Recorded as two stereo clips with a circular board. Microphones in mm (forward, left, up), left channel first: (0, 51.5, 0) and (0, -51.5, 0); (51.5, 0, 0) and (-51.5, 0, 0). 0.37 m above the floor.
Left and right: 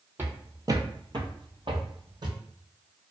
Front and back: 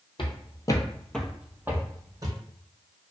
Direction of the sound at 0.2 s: 25° right.